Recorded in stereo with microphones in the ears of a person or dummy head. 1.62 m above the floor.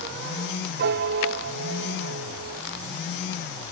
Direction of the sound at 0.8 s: 60° right (ahead or behind).